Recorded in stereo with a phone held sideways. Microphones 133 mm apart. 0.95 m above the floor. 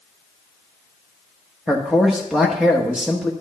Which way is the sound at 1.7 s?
5° right (ahead or behind).